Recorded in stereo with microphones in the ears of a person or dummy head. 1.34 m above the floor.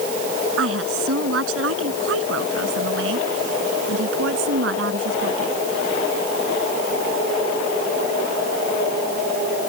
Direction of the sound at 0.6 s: 75° right (ahead or behind).